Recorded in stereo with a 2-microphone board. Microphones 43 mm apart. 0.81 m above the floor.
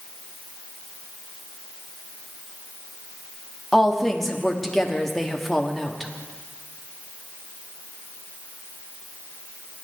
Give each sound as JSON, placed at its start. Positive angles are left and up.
{"t": 3.7, "sound": "a woman speaking", "side_deg": 5, "distance_m": 1.3}